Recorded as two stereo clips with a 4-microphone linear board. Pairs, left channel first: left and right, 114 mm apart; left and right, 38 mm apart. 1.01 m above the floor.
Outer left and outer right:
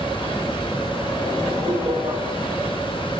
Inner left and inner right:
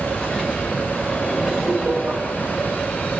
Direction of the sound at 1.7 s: 50° right (ahead or behind).